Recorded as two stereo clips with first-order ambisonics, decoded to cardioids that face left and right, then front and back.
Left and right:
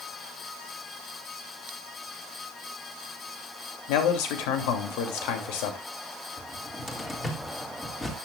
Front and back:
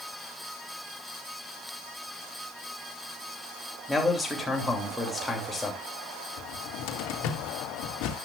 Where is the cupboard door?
10° left, 2.5 m.